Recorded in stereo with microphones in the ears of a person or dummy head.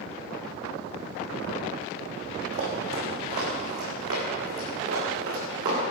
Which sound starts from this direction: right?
Running footsteps, at 2.5 s.